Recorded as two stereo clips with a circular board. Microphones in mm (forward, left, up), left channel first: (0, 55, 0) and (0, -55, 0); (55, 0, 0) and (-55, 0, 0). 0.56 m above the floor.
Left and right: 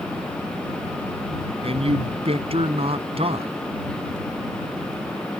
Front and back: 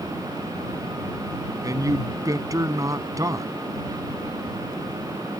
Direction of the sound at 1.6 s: 120° right.